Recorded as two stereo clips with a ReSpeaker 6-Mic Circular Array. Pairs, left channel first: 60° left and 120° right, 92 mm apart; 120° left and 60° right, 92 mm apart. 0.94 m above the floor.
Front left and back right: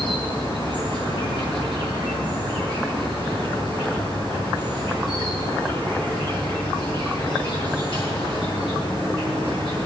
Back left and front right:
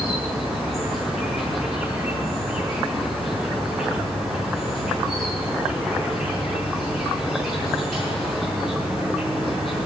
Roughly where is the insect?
Ahead left.